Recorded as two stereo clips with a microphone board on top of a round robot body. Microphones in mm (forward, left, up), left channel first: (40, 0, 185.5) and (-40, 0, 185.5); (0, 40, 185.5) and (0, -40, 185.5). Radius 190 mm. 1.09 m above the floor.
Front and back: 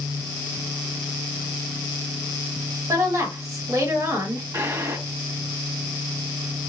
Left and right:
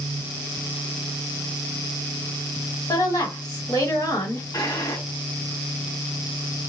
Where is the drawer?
130° left, 1.6 m.